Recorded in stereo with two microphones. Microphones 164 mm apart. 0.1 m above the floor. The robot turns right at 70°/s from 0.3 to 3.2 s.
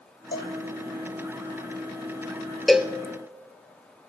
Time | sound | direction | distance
0.3 | a cowbell | 75° left (ahead or behind) | 1.3 m
2.7 | a cowbell | centre (ahead or behind) | 0.6 m